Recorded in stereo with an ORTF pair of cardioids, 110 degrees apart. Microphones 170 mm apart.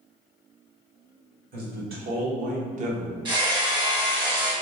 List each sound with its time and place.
1.5 s a man speaking: 65° right, 1.5 m; by 3.1 s 40° right, 0.7 m
3.2 s hammering: 25° right, 1.1 m